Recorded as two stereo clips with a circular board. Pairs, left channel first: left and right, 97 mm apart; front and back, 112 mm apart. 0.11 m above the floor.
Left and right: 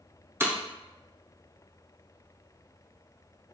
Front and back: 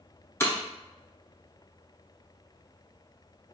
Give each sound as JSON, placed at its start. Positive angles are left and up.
{"t": 0.4, "sound": "breaking glass", "azimuth_deg": -50, "distance_m": 0.8}